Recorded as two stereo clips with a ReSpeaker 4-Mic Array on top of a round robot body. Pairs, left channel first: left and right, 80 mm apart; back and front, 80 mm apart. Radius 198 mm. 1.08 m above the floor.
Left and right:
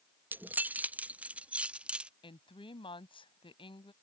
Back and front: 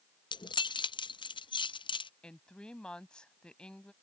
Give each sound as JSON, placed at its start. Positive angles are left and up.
{"t": 0.3, "sound": "keys jangling", "azimuth_deg": -155}
{"t": 2.2, "sound": "a woman speaking", "azimuth_deg": 100}